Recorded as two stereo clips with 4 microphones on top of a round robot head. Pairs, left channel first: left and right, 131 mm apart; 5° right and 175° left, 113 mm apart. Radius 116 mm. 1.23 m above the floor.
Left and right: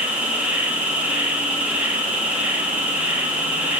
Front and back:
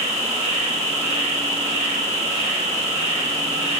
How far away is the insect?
About 3 m.